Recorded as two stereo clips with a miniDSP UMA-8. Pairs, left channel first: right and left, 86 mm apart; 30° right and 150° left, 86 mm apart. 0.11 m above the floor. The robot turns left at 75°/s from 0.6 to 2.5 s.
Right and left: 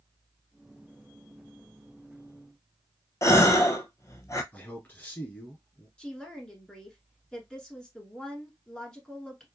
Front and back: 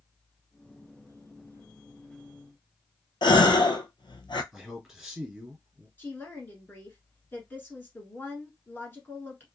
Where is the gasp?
40° right, 0.6 m.